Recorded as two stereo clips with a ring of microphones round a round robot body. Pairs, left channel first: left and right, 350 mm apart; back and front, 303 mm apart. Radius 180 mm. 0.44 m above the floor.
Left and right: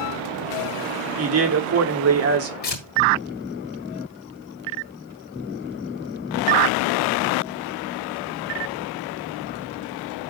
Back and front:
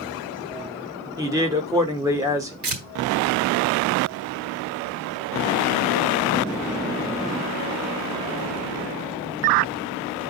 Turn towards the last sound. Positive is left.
turn(degrees=25)